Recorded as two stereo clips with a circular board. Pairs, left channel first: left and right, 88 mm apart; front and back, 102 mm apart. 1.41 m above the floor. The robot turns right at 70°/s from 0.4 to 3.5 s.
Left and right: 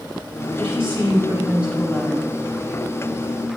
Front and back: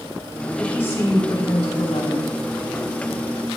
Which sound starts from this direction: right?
A woman speaking, at 0.6 s.